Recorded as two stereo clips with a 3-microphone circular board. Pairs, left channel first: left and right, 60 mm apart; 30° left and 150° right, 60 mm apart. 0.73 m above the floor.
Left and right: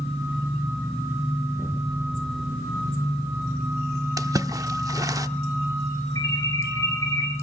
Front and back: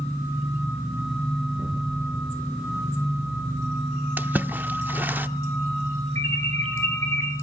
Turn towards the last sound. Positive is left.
turn(degrees=70)